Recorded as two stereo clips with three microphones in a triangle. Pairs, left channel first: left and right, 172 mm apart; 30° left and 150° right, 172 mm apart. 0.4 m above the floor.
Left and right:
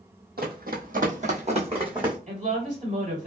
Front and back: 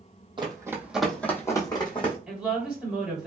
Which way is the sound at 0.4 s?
90° right.